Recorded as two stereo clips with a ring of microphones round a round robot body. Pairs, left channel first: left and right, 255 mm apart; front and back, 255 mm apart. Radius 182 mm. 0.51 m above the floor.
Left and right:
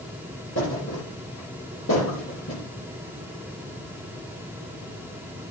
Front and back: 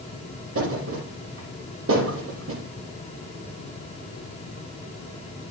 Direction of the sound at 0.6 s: 150° left.